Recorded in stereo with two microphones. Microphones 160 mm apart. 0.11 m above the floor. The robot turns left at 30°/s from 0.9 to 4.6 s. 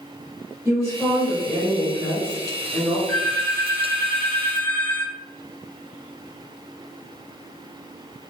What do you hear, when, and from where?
0.7 s a woman speaking: 10° right (ahead or behind), 1.7 m; by 3.0 s 20° left (ahead or behind), 1.7 m
3.1 s a phone ringing: 30° right (ahead or behind), 1.8 m; by 8.3 s 10° left (ahead or behind), 1.8 m